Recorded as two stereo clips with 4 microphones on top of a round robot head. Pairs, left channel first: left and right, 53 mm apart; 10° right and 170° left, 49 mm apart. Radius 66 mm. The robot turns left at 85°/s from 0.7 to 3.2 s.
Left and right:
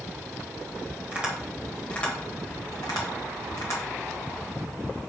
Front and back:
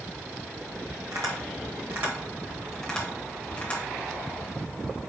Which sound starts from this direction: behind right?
Tapping, at 1.1 s.